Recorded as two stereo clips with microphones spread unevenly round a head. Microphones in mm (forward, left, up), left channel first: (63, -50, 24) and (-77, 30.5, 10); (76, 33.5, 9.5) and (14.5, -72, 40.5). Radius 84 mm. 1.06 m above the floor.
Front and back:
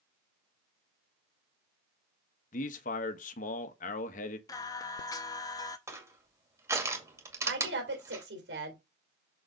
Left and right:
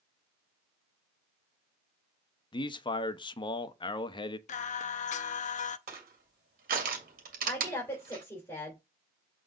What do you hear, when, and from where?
2.5 s a man speaking: 15° left, 1.1 m
4.5 s singing: 35° left, 0.6 m
5.9 s crushing: 140° right, 2 m
7.5 s a woman speaking: 135° left, 3.5 m